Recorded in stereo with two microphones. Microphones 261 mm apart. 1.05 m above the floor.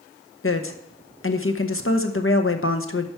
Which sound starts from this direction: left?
A woman speaking, at 0.4 s.